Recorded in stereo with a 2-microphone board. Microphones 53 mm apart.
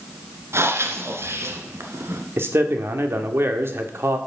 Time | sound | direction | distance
0.5 | breathing | 55° right (ahead or behind) | 1.7 m
2.4 | a man speaking | 55° right (ahead or behind) | 1.7 m